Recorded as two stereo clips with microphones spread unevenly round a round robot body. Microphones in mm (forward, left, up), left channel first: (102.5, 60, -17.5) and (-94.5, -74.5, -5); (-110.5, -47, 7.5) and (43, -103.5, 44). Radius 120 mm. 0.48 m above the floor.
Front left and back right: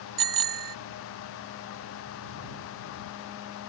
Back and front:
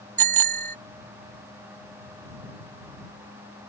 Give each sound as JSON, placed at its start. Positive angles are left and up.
{"t": 0.2, "sound": "a bicycle bell", "azimuth_deg": -125}